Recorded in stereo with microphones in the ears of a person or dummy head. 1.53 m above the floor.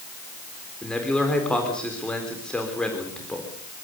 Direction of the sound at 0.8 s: 5° left (ahead or behind).